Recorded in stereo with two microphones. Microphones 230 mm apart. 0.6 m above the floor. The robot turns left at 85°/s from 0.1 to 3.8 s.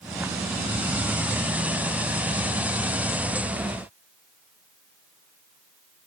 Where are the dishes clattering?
I don't hear dishes clattering.